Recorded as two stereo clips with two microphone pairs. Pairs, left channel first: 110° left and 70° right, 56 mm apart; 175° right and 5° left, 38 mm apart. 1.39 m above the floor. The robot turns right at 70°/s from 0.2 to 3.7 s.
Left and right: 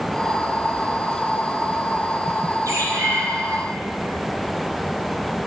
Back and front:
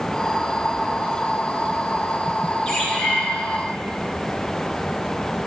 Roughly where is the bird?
Right.